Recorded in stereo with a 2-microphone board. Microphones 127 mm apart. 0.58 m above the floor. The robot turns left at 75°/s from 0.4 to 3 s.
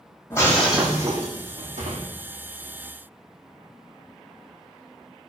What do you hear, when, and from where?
0.3 s breaking glass: 20° left, 7 m; by 2.1 s 110° right, 7 m